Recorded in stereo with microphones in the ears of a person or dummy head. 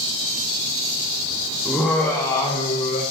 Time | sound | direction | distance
1.6 | laughter | 5° right (ahead or behind) | 1.3 m